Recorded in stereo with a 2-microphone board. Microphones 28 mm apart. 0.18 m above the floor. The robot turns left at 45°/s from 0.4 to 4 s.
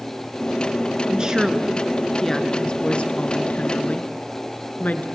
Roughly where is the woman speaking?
Behind right.